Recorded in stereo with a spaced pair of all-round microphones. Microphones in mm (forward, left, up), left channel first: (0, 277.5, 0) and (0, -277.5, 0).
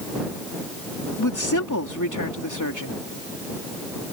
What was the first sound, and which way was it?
A woman speaking, 35° left (ahead or behind).